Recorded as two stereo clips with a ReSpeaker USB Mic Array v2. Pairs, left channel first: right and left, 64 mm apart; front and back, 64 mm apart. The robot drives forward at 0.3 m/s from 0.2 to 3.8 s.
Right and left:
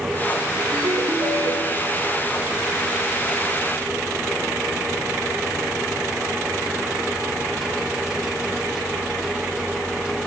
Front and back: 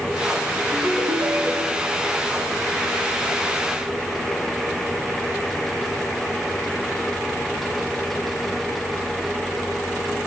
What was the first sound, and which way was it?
A ringtone, 115° left.